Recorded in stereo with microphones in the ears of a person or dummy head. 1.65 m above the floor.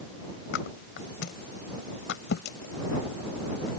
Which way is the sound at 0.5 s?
75° left (ahead or behind).